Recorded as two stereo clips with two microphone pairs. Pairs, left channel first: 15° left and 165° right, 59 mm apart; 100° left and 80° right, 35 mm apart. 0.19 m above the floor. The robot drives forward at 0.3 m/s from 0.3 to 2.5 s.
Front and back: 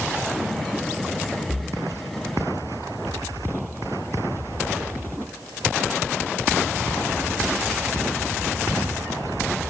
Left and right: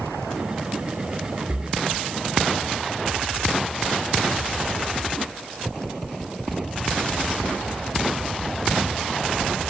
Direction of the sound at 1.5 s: 160° left.